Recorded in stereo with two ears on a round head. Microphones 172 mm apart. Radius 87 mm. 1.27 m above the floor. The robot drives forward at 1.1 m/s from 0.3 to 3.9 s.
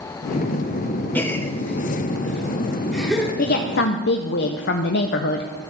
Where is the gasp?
10° left (ahead or behind), 0.6 m; by 3.3 s centre (ahead or behind), 2 m.